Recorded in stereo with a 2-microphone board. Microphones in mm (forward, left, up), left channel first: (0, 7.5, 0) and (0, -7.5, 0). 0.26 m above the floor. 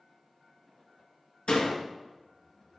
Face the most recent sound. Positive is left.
turn(degrees=65)  # may be behind; listen again after turning